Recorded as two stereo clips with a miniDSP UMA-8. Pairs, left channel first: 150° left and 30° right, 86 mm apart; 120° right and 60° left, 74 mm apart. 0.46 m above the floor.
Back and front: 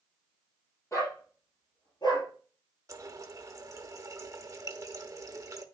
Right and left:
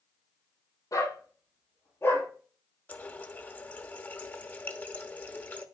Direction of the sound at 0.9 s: 155° right.